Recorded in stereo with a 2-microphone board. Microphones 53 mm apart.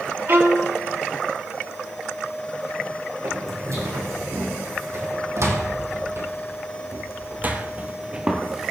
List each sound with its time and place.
0.3 s a violin: 50° right (ahead or behind), 1.9 m
3.2 s footsteps: 70° right (ahead or behind), 3 m; by 8.7 s 5° right (ahead or behind), 1.4 m